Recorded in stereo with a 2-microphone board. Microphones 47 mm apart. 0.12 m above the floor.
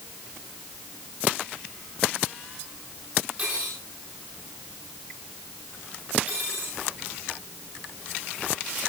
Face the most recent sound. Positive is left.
turn(degrees=-35)  # may be behind; listen again after turning